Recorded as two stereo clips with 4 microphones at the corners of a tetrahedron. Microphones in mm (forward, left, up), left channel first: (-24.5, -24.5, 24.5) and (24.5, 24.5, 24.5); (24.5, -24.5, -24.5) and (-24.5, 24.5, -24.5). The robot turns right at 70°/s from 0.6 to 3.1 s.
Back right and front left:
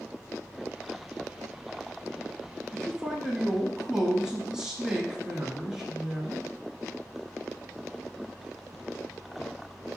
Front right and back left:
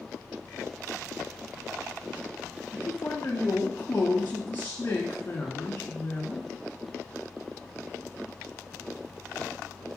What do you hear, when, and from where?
2.7 s a man speaking: 50° right, 1.3 m; by 6.4 s 25° right, 1.3 m